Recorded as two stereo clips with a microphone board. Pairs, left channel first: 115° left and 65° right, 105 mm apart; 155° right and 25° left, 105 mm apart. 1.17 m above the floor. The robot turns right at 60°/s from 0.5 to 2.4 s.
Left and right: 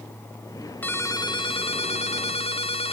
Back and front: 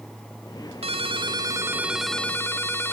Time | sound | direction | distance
0.8 | a ringtone | 40° left | 1.7 m